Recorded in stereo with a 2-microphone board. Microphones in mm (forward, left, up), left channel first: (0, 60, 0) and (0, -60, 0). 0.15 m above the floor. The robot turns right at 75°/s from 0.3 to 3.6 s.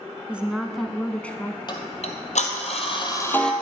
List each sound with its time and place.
0.3 s a woman speaking: 10° right (ahead or behind), 1.0 m; by 1.6 s 15° left (ahead or behind), 1.0 m
1.7 s ticking: 40° left, 1.9 m; by 3.5 s 175° left, 1.9 m